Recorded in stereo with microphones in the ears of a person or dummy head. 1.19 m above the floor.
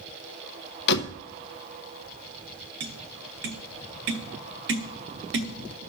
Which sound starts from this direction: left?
A door slam, at 0.9 s.